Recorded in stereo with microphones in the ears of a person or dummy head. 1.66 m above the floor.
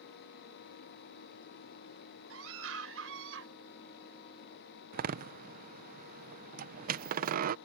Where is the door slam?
50° right (ahead or behind).